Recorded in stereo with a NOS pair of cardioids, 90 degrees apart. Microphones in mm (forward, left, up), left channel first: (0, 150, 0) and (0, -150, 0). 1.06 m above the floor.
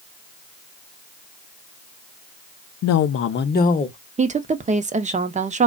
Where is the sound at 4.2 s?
25° right, 0.7 m.